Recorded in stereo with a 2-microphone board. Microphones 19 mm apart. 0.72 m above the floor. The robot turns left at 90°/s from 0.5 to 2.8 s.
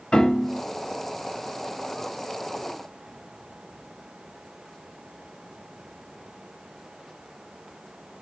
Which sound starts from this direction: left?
A piano, at 0.1 s.